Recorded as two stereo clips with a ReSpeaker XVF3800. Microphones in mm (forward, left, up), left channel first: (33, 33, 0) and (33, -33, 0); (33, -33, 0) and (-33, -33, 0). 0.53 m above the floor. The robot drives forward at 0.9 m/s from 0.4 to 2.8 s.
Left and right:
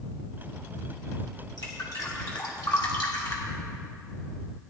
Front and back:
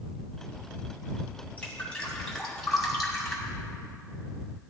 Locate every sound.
1.6 s dripping: 65° left, 3 m; by 3.5 s 90° left, 2.5 m